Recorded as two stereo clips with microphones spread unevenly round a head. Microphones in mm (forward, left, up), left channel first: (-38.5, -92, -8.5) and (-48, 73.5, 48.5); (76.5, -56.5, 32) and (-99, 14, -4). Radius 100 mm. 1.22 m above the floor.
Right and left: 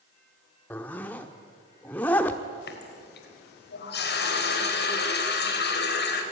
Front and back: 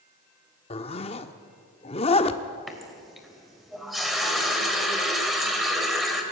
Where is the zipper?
10° left, 1.0 m.